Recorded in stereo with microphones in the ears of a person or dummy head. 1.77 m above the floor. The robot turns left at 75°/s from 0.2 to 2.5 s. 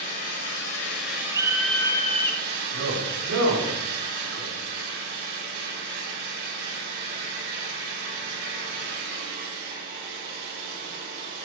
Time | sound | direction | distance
0.0 | an engine running | 115° left | 7 m
1.3 | a scream | 150° right | 1.1 m
2.7 | a man speaking | 85° right | 6.5 m